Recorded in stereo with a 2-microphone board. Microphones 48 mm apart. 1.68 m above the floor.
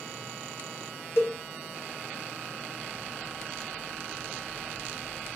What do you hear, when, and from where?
1.2 s a cowbell: 60° left (ahead or behind), 0.7 m